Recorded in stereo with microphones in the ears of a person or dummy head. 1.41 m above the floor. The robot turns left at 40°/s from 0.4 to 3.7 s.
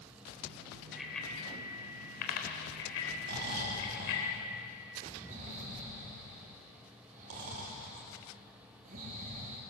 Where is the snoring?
60° right (ahead or behind), 3.5 m; by 9.6 s 40° right (ahead or behind), 3.5 m.